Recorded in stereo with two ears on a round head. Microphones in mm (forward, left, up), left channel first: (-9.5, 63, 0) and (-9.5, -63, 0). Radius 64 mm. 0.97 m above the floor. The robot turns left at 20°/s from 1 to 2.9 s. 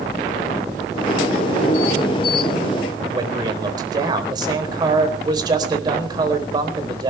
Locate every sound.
3.1 s a man speaking: 30° right (ahead or behind), 4 m